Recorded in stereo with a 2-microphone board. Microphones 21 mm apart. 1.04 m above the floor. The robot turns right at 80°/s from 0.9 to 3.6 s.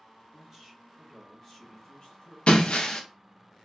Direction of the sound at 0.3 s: 20° right.